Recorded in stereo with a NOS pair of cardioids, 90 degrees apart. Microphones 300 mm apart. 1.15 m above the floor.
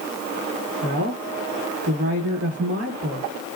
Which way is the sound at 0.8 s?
45° right.